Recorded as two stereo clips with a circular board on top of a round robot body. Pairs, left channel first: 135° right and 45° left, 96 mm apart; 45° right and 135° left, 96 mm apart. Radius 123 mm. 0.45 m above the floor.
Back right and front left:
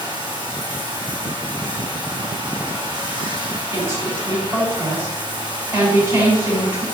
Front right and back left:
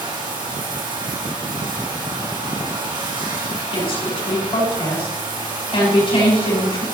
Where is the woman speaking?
20° right, 6.5 m.